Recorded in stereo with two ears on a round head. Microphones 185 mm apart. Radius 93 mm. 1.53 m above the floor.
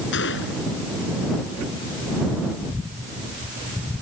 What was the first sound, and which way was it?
A gunshot, 65° left (ahead or behind).